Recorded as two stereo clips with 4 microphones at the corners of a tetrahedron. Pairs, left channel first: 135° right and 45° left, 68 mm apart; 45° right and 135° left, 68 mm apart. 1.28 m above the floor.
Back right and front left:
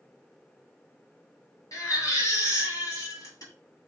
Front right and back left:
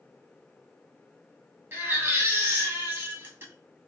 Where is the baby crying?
170° right, 2 m.